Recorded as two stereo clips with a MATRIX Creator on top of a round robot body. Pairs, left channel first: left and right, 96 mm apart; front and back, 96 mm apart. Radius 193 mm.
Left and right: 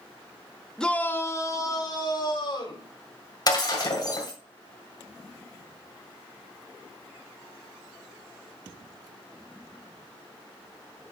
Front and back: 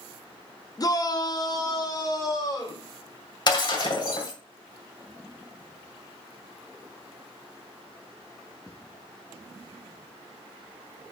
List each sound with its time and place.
0.8 s a shout: 10° left, 1.2 m; by 2.9 s 55° left, 3 m
3.5 s breaking glass: 45° left, 2.5 m